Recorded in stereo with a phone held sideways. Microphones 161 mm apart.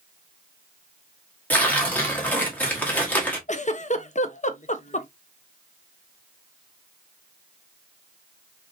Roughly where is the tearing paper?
Centre.